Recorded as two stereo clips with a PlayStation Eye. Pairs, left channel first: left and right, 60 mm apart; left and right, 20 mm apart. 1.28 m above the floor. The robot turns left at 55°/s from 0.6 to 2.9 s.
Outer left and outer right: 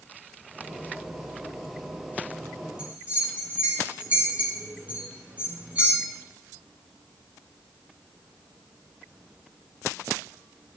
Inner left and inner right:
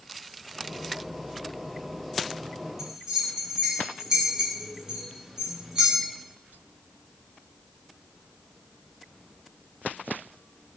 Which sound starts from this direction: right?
A bell, at 2.8 s.